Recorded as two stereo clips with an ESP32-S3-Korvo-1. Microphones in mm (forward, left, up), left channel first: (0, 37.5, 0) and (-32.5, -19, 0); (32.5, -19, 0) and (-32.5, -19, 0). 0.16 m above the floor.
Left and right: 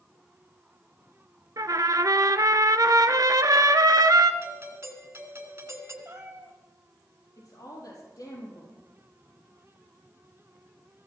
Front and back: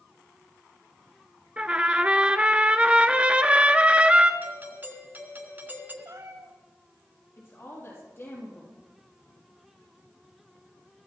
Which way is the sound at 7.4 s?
45° left.